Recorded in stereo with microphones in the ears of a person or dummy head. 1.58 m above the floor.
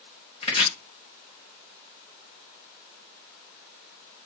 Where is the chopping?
30° left (ahead or behind), 0.9 m.